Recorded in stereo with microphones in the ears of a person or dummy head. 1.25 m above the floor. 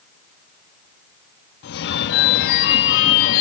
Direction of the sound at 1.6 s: 55° left (ahead or behind).